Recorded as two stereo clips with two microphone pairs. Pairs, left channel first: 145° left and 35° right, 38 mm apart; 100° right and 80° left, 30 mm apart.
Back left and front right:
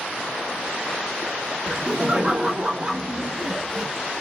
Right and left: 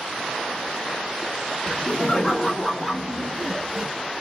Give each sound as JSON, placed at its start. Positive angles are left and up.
{"t": 1.7, "sound": "laughter", "azimuth_deg": -50, "distance_m": 1.4}